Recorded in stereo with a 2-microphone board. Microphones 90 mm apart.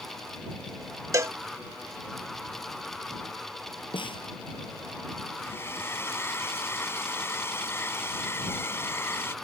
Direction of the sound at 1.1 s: 40° right (ahead or behind).